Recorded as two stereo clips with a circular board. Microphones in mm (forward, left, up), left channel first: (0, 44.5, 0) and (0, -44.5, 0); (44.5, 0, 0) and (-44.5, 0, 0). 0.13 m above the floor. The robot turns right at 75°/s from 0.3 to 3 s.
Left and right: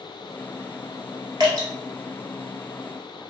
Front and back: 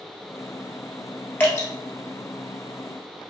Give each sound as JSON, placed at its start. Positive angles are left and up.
{"t": 1.4, "sound": "dripping", "azimuth_deg": -65, "distance_m": 1.3}